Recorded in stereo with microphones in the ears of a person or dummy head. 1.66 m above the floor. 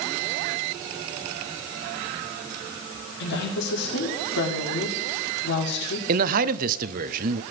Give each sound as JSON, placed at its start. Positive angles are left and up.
{"t": 3.2, "sound": "a woman speaking", "side_deg": 65, "distance_m": 4.5}
{"t": 6.1, "sound": "a man speaking", "side_deg": -50, "distance_m": 0.8}